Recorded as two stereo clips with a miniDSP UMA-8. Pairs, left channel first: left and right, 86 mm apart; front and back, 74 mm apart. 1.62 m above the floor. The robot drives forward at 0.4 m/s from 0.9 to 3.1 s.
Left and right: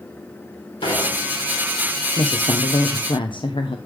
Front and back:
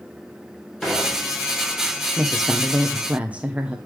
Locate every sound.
0.8 s dishes clattering: 80° left, 4.5 m; by 1.6 s 85° left, 4.5 m
2.2 s a woman speaking: 80° left, 0.8 m; by 3.8 s 110° left, 0.8 m